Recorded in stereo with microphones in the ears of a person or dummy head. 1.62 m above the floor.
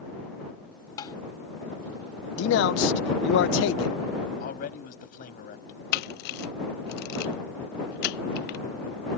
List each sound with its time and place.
1.0 s tapping: 25° left (ahead or behind)
2.4 s a man speaking: 75° left (ahead or behind)
4.4 s a man speaking: 55° left (ahead or behind)
5.9 s a camera shutter: 65° left (ahead or behind)